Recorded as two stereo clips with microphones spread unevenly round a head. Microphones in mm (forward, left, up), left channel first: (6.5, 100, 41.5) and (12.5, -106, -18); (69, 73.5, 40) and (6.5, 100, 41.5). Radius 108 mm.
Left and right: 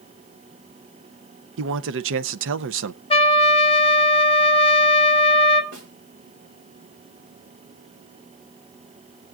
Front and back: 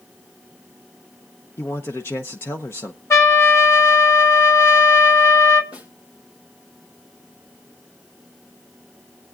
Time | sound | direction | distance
1.6 | a man speaking | 90° right | 0.6 m
3.1 | a trumpet | 25° left | 1.1 m
5.7 | a snare drum | 55° right | 5.5 m